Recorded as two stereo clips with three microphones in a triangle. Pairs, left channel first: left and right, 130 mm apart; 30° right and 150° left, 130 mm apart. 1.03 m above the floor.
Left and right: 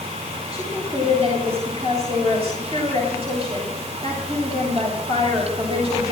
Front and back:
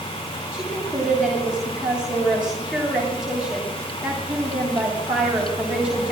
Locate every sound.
0.5 s a woman speaking: 125° right, 7.5 m